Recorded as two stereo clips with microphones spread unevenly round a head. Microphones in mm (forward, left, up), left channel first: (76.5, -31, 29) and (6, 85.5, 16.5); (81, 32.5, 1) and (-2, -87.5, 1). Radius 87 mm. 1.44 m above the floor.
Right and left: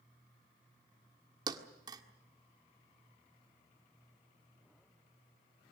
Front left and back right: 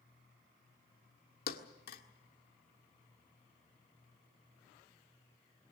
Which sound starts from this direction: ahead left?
A thud, at 1.5 s.